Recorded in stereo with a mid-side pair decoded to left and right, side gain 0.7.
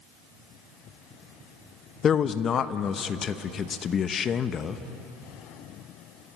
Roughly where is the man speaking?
Ahead left.